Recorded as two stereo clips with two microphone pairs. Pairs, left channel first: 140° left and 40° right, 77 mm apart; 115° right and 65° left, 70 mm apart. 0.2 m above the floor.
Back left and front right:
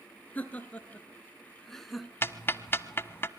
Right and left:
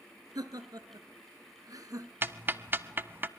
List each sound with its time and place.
0.3 s laughter: 70° left, 2.5 m; by 2.1 s 50° left, 1.7 m
2.2 s ticking: 100° left, 0.7 m